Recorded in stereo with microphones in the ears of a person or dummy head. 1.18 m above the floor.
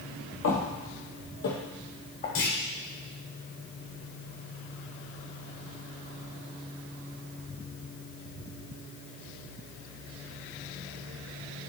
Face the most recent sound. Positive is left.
turn(degrees=55)  # may be behind; listen again after turning